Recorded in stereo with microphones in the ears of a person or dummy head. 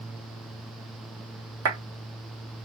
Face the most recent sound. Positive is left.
turn(degrees=-85)